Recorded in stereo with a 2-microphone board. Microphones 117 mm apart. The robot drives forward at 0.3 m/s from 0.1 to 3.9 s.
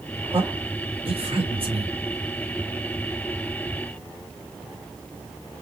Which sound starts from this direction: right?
A man speaking, at 0.3 s.